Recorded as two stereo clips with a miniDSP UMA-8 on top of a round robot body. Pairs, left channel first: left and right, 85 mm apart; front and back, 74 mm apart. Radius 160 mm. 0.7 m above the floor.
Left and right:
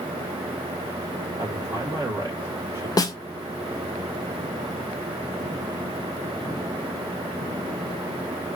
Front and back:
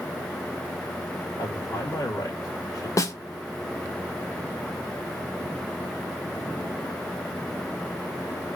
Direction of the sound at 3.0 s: 45° left.